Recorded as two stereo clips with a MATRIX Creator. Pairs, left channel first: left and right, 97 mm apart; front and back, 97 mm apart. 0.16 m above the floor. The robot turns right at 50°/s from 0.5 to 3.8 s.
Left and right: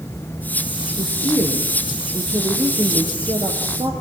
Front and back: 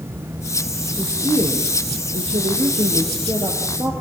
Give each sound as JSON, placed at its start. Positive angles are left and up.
{"t": 1.0, "sound": "a woman speaking", "azimuth_deg": 110, "distance_m": 5.0}